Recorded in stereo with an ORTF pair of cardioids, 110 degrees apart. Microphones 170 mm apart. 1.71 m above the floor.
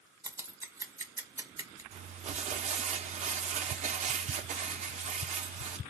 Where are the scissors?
20° right, 1.5 m.